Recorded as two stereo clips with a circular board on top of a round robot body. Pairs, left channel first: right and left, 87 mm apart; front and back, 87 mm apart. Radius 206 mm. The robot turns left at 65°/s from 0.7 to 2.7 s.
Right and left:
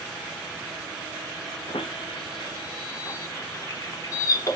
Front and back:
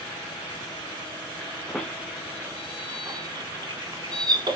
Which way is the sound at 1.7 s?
80° right.